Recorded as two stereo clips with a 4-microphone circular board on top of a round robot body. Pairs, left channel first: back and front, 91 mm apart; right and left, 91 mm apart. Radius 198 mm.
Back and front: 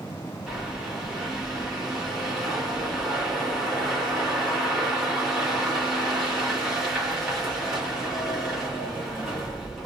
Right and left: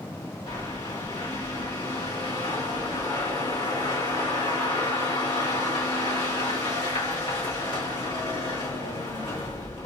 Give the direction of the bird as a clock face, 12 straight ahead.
3 o'clock.